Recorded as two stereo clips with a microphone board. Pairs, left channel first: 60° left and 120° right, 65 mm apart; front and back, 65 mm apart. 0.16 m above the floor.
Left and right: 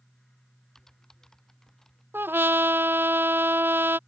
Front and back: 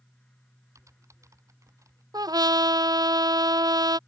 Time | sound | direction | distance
0.8 | typing on a keyboard | 145° left | ?
2.1 | a trumpet | 175° right | ?